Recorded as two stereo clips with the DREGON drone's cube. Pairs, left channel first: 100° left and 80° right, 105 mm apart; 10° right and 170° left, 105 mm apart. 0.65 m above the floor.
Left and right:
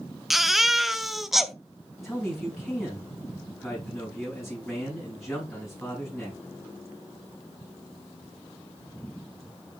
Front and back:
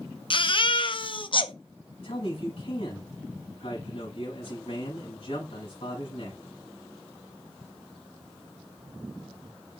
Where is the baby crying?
10° left, 0.7 m.